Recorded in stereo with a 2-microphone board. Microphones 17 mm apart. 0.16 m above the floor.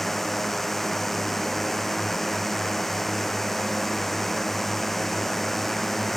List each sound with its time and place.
0.0 s a drone: 10° left (ahead or behind)